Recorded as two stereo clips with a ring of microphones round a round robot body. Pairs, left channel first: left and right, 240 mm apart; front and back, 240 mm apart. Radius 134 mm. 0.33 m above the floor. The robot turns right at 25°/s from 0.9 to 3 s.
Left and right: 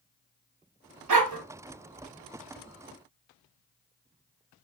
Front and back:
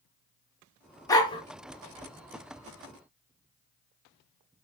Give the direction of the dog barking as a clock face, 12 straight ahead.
3 o'clock.